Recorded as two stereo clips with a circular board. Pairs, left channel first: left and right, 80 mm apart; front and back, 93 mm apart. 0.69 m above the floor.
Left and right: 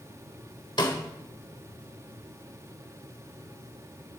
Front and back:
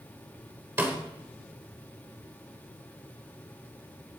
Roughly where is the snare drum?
Left.